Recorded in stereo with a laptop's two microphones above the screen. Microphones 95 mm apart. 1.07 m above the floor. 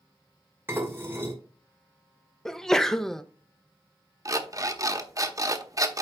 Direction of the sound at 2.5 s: 5° left (ahead or behind).